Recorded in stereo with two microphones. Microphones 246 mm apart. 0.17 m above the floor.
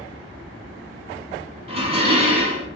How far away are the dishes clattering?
About 0.8 m.